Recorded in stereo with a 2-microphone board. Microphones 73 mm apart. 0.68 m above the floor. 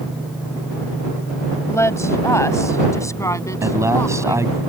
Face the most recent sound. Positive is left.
turn(degrees=-45)  # may be behind; listen again after turning